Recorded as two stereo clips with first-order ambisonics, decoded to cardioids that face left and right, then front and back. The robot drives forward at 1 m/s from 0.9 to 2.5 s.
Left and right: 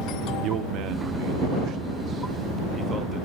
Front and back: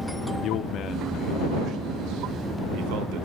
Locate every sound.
0.4 s a man speaking: 50° right, 0.6 m; by 3.3 s 160° right, 1.3 m